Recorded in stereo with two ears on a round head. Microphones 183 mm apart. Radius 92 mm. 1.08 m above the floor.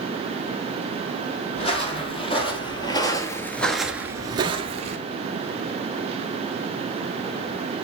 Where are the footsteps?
30° left (ahead or behind), 3 m; by 5.0 s 35° right (ahead or behind), 1.4 m.